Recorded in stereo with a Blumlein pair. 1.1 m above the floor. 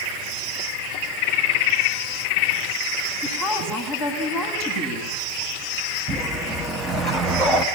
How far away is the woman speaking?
About 9 m.